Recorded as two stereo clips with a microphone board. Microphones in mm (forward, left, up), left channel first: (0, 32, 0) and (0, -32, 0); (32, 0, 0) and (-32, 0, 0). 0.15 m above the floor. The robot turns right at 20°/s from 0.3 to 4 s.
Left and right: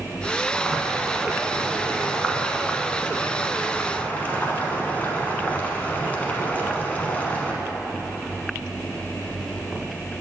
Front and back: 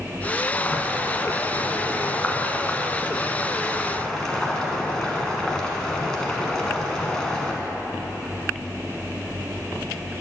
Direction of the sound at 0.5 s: 5° right.